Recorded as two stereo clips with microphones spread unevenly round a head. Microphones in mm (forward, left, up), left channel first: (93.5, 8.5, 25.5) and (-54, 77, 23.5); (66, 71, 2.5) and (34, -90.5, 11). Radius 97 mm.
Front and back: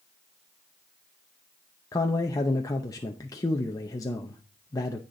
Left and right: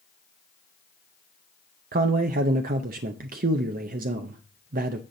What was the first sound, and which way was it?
A man speaking, 90° right.